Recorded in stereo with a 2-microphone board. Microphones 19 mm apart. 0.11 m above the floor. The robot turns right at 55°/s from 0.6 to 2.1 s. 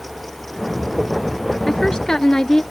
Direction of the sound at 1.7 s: 30° left (ahead or behind).